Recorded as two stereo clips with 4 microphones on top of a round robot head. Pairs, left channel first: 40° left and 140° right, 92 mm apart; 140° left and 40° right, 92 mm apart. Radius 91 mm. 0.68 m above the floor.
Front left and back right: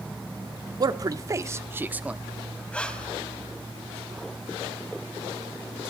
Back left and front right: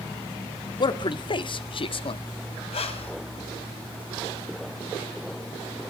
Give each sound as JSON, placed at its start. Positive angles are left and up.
{"t": 0.8, "sound": "a man speaking", "azimuth_deg": 175, "distance_m": 1.5}
{"t": 2.7, "sound": "breathing", "azimuth_deg": 120, "distance_m": 2.5}